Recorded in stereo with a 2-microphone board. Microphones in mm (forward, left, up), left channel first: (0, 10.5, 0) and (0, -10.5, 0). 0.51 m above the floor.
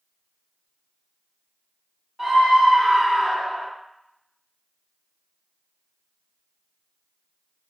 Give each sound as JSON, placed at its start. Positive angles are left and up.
{"t": 2.2, "sound": "a scream", "side_deg": -10, "distance_m": 1.1}